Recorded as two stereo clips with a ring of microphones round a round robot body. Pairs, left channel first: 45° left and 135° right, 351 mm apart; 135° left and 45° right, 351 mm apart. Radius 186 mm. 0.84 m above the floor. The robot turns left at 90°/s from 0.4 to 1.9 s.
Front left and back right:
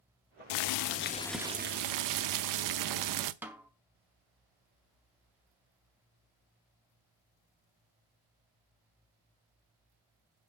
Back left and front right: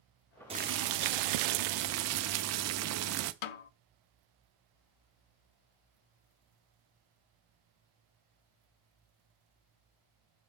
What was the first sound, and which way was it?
Boiling, 30° left.